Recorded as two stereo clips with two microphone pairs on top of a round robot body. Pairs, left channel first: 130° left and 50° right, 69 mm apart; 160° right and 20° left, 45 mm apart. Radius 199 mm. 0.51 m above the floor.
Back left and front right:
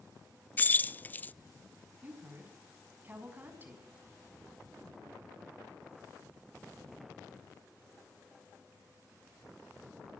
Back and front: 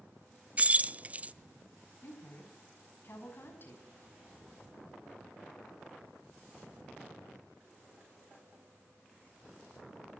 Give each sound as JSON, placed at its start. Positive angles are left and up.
{"t": 0.6, "sound": "keys jangling", "azimuth_deg": 70, "distance_m": 0.5}
{"t": 2.0, "sound": "a woman speaking", "azimuth_deg": -115, "distance_m": 7.5}